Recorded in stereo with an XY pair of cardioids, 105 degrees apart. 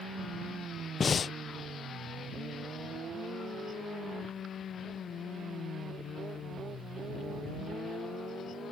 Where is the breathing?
40° left.